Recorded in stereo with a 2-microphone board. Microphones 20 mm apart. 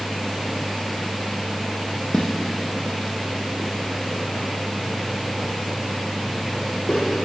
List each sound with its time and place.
2.1 s footsteps: 20° left (ahead or behind), 1.2 m; by 7.0 s 35° left (ahead or behind), 6 m